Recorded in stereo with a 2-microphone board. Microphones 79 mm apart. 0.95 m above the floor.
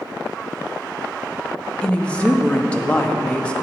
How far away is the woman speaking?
About 0.6 m.